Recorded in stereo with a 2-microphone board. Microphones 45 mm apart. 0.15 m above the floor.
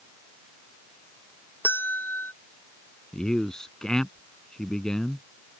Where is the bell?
50° left (ahead or behind).